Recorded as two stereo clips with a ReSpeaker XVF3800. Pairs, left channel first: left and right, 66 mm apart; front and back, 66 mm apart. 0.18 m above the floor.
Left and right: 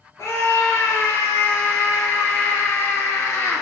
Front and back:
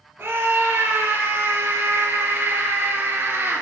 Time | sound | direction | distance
0.2 | a scream | 125° left | 3.5 m